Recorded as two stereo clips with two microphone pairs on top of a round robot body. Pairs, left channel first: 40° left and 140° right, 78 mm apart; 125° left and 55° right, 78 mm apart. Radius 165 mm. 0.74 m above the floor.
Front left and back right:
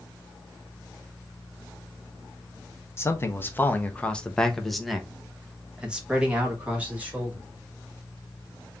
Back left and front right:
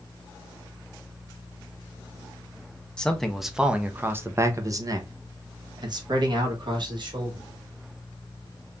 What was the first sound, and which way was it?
A man speaking, 65° left.